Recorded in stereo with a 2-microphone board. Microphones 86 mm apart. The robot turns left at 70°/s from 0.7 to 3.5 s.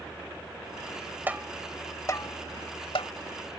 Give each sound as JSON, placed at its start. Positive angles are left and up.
{"t": 1.3, "sound": "tapping", "side_deg": -20}